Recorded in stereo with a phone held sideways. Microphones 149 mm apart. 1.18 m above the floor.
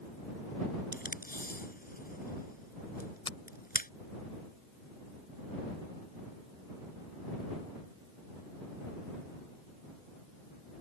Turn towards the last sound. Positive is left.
turn(degrees=35)  # may be behind; listen again after turning